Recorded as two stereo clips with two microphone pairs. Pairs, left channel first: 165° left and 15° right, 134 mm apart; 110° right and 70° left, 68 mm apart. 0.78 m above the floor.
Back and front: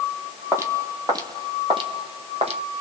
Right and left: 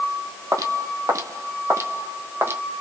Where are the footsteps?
55° left, 1.6 m; by 2.6 s 20° left, 2 m.